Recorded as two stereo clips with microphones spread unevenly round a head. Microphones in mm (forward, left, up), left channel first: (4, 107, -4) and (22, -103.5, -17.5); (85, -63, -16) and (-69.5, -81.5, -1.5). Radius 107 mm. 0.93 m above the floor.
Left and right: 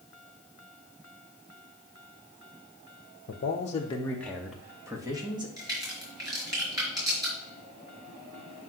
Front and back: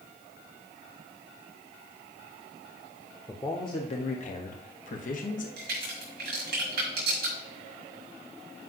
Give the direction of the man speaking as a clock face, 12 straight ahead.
10 o'clock.